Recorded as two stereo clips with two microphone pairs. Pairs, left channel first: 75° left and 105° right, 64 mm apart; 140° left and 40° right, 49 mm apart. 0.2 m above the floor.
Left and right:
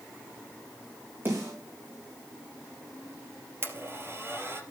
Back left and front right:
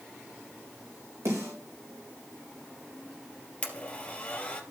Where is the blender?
155° right, 2.5 m.